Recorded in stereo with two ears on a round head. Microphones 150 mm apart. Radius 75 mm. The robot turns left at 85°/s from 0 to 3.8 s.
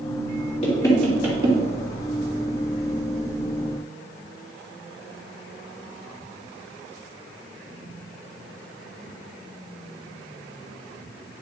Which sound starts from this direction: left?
Knocking, at 0.6 s.